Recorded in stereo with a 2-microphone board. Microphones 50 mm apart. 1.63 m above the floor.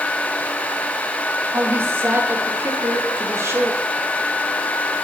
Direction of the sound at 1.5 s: 50° right (ahead or behind).